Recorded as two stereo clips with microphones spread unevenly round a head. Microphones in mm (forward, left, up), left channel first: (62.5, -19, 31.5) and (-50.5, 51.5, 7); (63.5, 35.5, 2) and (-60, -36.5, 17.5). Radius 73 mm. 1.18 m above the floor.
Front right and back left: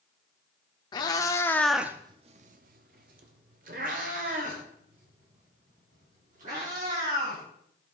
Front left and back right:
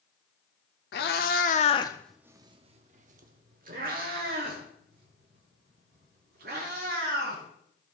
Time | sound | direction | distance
0.9 | a cat meowing | 15° left | 1.2 m